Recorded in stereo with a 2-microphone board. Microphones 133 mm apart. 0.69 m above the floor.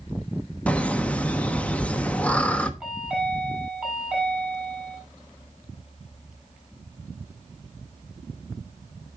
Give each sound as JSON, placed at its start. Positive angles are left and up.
{"t": 0.7, "sound": "laughter", "side_deg": 10, "distance_m": 0.9}
{"t": 2.8, "sound": "a chime", "side_deg": -5, "distance_m": 6.0}